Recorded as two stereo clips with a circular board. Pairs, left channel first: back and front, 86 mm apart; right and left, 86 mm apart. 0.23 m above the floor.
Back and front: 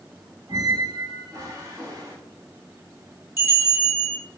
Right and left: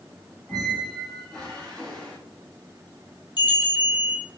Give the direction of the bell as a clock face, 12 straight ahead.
2 o'clock.